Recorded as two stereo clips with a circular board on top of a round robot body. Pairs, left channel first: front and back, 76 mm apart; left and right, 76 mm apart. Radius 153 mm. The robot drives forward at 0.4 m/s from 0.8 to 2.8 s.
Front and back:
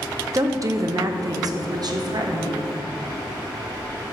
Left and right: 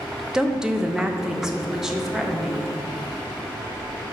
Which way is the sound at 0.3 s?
170° right.